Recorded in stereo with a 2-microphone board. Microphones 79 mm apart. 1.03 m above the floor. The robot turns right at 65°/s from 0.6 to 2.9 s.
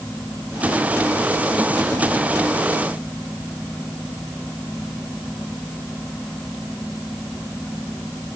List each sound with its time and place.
Only background noise.